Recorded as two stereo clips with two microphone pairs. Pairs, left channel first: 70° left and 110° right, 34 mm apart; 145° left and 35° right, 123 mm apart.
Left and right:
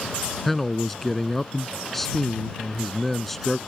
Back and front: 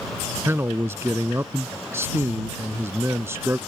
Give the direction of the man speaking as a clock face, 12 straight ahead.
12 o'clock.